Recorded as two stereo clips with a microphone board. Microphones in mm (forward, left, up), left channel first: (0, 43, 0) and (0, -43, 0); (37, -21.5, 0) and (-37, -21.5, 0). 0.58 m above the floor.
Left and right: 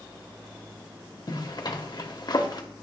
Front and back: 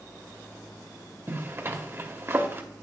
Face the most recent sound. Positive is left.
turn(degrees=125)